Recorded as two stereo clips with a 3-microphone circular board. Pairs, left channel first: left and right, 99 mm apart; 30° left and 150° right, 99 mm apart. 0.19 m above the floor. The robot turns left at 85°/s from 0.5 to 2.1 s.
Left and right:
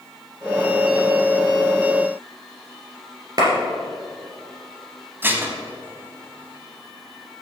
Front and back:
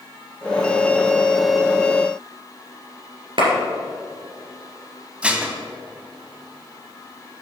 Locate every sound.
3.4 s a clap: 135° right, 2.5 m
5.2 s dishes clattering: 95° right, 0.9 m